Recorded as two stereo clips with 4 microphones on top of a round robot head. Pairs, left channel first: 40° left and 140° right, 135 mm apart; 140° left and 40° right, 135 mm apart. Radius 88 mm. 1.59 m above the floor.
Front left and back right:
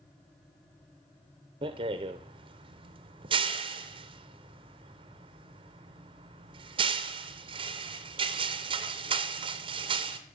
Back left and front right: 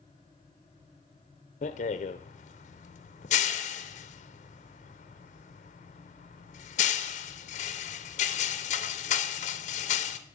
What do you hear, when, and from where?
1.6 s a rattle: 170° left, 0.6 m